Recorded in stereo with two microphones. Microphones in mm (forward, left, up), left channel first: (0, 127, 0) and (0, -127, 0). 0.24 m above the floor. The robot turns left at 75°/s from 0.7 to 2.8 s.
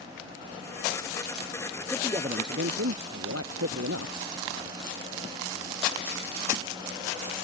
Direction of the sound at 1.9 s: Straight ahead.